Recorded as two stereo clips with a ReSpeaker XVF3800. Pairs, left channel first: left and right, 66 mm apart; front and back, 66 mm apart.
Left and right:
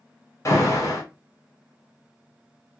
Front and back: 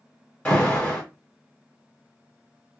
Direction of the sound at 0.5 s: 65° left.